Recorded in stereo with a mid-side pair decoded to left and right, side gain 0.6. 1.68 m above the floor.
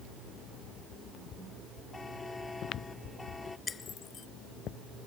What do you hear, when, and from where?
1.9 s a buzzer: 15° left
3.7 s breaking glass: 30° left